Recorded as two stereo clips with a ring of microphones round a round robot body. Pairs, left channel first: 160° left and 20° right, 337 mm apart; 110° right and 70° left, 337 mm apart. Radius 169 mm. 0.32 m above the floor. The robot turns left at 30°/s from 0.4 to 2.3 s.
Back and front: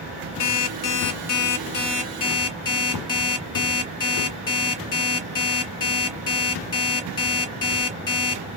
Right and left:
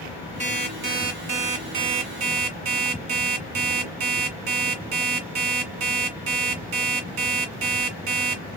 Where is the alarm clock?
140° left, 1.9 m; by 8.4 s 80° left, 1.9 m.